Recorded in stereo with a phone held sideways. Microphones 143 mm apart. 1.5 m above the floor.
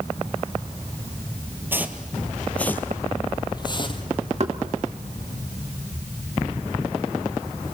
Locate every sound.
1.7 s footsteps: 15° right (ahead or behind), 1.7 m; by 4.0 s 35° left (ahead or behind), 2.5 m
4.4 s knocking: 45° right (ahead or behind), 2.5 m